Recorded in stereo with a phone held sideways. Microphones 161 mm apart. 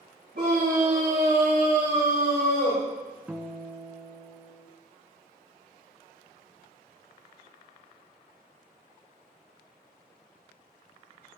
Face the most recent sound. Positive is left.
turn(degrees=-10)  # may be behind; listen again after turning